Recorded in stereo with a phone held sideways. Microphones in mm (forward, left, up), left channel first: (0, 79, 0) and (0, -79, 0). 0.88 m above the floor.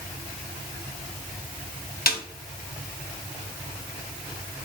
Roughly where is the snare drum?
Left.